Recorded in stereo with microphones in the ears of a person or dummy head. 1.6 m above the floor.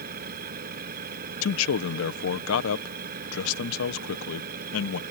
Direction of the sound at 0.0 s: 50° right (ahead or behind).